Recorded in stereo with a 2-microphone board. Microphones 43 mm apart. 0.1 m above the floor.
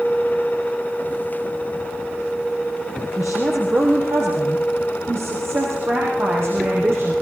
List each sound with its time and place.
3.2 s a woman speaking: 55° right (ahead or behind), 4.5 m; by 7.1 s 70° right (ahead or behind), 7 m